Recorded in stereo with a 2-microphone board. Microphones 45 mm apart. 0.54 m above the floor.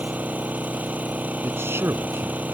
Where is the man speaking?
70° right (ahead or behind).